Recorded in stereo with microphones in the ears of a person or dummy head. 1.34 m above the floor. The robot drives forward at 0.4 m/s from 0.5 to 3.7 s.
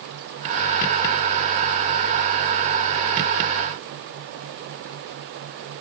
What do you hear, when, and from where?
Only background noise.